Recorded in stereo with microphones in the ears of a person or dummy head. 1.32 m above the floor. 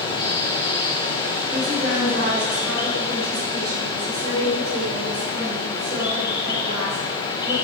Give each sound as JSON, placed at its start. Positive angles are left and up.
{"t": 0.0, "sound": "running water", "side_deg": 30, "distance_m": 1.7}
{"t": 1.5, "sound": "a woman speaking", "side_deg": -50, "distance_m": 4.5}